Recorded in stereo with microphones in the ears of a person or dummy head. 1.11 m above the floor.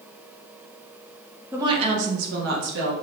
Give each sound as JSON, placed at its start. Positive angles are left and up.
{"t": 1.5, "sound": "a woman speaking", "side_deg": -15, "distance_m": 0.7}